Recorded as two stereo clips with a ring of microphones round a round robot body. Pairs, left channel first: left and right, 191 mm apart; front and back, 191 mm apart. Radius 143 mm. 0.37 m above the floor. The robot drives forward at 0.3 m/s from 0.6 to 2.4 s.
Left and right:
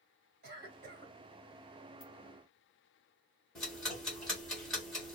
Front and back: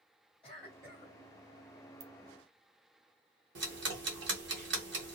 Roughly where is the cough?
Right.